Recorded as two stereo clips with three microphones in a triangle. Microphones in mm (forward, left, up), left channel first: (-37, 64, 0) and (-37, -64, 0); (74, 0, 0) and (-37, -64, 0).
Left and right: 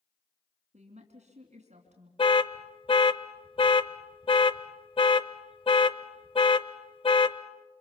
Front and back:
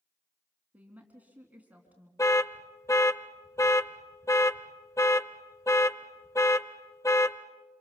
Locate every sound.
0.7 s a woman speaking: 70° right, 3 m
2.2 s an alarm: 85° left, 0.7 m